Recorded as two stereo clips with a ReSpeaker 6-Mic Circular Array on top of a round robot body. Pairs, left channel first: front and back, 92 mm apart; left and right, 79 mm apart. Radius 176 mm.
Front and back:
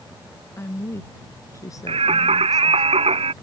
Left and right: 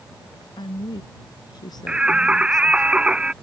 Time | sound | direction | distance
0.6 | a woman speaking | 65° left | ?
1.9 | singing | 170° right | ?